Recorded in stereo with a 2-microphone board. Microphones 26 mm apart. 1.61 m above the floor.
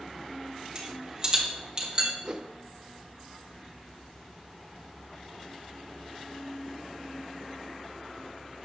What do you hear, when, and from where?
0.8 s a rattle: 25° right (ahead or behind), 3 m
2.2 s a whoosh: 25° right (ahead or behind), 0.7 m